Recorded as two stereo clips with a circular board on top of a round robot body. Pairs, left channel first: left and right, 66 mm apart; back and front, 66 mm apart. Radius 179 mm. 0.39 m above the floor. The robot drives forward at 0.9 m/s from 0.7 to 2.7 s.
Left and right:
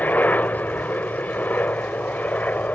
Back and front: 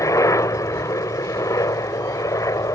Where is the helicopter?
155° left.